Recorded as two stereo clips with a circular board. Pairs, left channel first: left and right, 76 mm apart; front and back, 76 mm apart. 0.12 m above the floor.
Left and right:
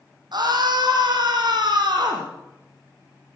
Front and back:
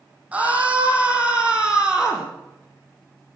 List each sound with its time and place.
0.3 s a scream: 110° right, 6.5 m; by 2.3 s 100° right, 5.5 m